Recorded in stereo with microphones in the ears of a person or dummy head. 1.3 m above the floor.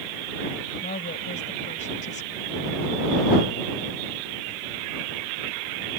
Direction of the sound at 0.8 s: 40° left (ahead or behind).